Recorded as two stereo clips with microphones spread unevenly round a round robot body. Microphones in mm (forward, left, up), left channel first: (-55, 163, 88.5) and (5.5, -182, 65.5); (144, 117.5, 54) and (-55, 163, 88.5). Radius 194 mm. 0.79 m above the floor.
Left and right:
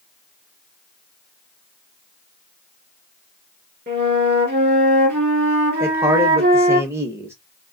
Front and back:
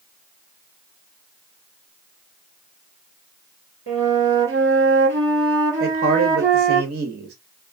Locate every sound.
3.9 s a flute: 140° right, 1.9 m
5.8 s a man speaking: 160° right, 0.7 m